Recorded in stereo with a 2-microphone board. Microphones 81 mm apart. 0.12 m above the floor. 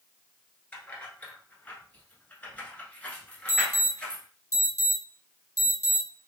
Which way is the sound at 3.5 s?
30° left (ahead or behind).